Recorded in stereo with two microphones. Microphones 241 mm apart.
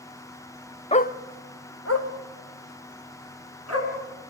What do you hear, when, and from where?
0.9 s a dog barking: 25° left (ahead or behind), 0.6 m; by 3.9 s 85° left, 5 m